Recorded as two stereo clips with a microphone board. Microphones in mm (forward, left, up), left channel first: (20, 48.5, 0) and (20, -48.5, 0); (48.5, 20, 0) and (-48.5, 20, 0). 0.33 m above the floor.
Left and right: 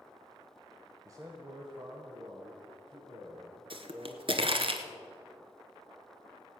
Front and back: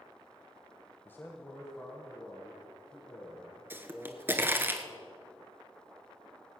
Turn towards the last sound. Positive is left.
turn(degrees=-110)